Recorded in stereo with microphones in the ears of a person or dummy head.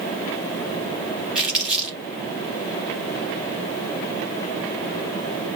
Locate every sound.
1.4 s crumpling: 5° right (ahead or behind), 3 m